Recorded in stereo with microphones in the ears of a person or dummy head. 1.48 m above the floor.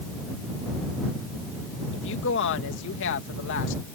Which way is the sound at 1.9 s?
65° left (ahead or behind).